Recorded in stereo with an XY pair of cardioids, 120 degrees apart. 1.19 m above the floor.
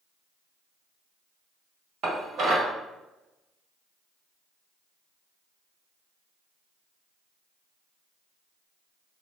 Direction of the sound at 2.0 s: 65° right.